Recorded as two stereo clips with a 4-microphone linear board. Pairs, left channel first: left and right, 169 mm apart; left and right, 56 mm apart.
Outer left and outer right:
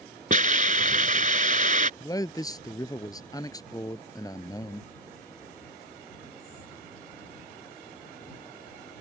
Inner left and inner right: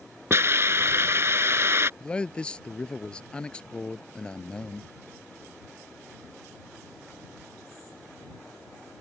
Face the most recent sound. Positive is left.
turn(degrees=20)  # may be behind; listen again after turning